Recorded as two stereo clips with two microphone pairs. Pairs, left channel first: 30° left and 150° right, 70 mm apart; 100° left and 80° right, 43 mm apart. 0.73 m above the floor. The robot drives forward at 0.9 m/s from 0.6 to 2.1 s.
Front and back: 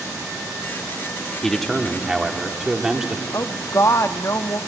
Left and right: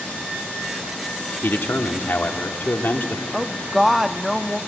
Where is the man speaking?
110° left, 1.6 m; by 3.2 s 130° left, 1.8 m.